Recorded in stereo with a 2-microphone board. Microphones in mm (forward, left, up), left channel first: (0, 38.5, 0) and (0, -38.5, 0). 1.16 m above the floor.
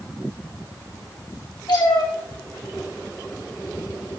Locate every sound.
1.7 s a cat meowing: 70° left (ahead or behind), 1.9 m